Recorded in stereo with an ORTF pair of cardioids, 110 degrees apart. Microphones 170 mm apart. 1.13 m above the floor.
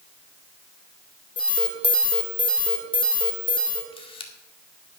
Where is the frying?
I don't hear frying.